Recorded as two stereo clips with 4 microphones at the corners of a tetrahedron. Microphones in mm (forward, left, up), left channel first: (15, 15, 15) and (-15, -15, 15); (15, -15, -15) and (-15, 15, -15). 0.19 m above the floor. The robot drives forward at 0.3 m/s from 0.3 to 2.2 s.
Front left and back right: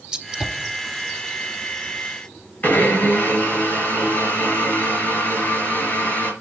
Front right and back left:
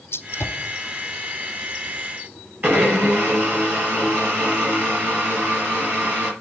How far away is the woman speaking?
I don't hear a woman speaking.